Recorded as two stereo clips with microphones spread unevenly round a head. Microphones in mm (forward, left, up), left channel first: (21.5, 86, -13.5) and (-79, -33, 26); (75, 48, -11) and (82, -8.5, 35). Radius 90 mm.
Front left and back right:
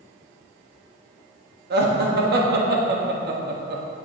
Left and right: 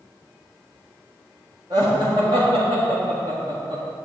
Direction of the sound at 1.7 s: 155° right.